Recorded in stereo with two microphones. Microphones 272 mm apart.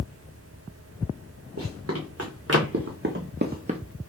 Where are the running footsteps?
65° right (ahead or behind), 2.5 m; by 3.8 s 20° right (ahead or behind), 0.7 m.